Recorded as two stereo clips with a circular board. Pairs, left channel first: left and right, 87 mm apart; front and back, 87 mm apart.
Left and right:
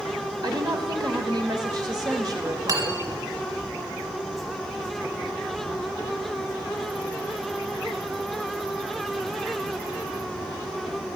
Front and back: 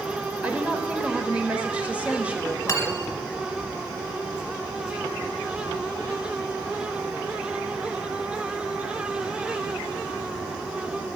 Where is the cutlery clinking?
50° right, 1.9 m.